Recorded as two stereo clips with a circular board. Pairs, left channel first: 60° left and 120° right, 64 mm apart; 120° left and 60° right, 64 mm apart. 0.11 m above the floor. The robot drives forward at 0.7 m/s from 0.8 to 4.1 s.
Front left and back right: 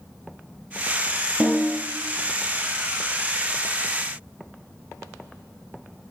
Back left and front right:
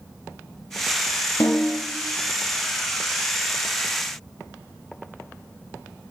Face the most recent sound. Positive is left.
turn(degrees=175)